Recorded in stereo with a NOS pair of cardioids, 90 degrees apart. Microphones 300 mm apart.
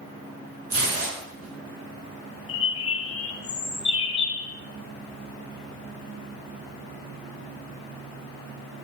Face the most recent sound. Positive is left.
turn(degrees=50)